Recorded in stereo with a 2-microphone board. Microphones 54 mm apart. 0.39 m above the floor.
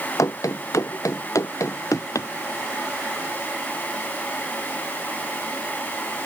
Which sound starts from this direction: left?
Running footsteps, at 0.2 s.